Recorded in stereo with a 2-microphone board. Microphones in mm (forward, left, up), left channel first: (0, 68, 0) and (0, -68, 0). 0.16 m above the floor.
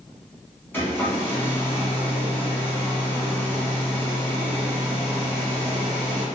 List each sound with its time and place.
0.7 s a hair dryer: 15° left (ahead or behind), 1.0 m